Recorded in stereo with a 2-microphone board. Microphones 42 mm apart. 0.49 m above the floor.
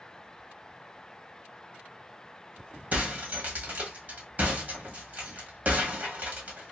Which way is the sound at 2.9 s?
40° right (ahead or behind).